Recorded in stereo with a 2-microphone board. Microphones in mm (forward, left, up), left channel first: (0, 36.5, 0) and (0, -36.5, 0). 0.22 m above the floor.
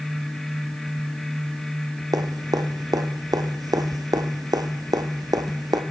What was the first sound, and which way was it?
Dripping, 60° right (ahead or behind).